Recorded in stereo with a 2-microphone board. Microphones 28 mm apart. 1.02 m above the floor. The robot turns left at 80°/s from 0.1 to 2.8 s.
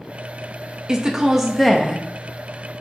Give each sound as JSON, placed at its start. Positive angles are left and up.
{"t": 0.9, "sound": "a woman speaking", "side_deg": -25, "distance_m": 0.6}